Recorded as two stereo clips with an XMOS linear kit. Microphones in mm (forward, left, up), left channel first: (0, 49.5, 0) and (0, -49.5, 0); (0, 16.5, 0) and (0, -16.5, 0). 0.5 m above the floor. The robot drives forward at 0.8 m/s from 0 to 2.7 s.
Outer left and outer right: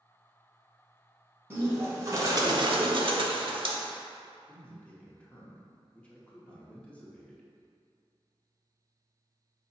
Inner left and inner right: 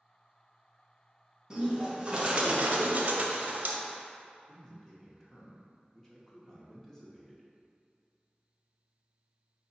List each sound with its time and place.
1.5 s a bird: 20° right (ahead or behind), 1.3 m; by 3.8 s 55° right (ahead or behind), 0.6 m
4.5 s a man speaking: 10° left (ahead or behind), 0.8 m